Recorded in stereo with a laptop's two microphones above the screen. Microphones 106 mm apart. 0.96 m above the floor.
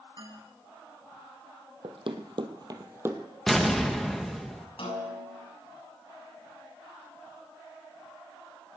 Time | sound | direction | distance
0.2 | a man speaking | 45° right (ahead or behind) | 5.5 m
1.8 | running footsteps | 60° right (ahead or behind) | 1.9 m
3.5 | an explosion | centre (ahead or behind) | 1.0 m
4.8 | a snare drum | 65° left (ahead or behind) | 7 m